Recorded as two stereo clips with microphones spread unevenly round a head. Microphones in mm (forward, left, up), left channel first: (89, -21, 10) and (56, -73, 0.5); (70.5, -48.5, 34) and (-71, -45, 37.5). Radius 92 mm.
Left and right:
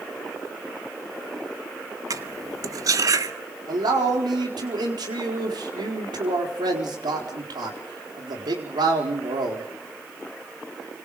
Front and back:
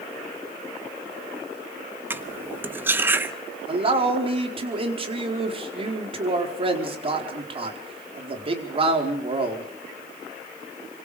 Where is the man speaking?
130° right, 4.5 m.